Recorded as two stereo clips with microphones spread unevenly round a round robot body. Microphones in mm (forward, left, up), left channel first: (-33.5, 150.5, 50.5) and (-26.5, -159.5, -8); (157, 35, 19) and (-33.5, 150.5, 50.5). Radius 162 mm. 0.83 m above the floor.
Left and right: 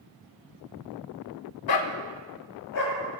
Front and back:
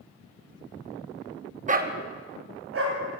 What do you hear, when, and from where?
1.7 s a dog barking: 95° left, 0.9 m; by 3.0 s 130° left, 2.5 m